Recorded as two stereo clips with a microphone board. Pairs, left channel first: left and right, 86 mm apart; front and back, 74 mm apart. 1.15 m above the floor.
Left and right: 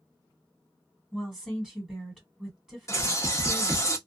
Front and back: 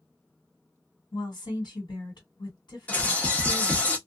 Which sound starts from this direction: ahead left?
A bird, at 2.9 s.